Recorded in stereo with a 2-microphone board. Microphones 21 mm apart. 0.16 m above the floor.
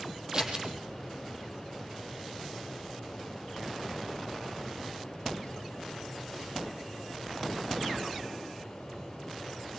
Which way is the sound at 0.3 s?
30° right (ahead or behind).